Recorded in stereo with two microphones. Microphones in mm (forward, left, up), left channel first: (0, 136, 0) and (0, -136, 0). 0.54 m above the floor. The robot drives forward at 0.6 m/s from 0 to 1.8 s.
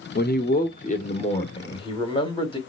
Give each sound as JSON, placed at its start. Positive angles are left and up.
{"t": 0.1, "sound": "a man speaking", "side_deg": 35, "distance_m": 0.7}